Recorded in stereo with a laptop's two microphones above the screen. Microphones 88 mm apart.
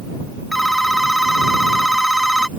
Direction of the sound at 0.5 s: Centre (ahead or behind).